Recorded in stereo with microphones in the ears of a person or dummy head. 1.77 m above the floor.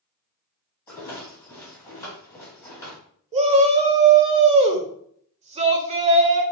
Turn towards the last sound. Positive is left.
turn(degrees=-20)  # may be behind; listen again after turning